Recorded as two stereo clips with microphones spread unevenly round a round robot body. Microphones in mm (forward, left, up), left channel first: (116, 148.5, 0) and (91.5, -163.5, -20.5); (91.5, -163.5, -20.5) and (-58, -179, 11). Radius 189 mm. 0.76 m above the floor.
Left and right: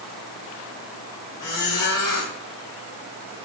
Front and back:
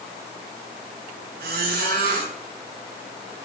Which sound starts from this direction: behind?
A squeak, at 1.4 s.